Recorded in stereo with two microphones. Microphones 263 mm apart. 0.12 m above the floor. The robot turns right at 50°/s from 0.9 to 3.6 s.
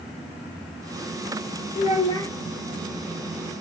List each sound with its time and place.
1.8 s a child speaking: 30° left (ahead or behind), 1.3 m; by 2.3 s 10° left (ahead or behind), 1.3 m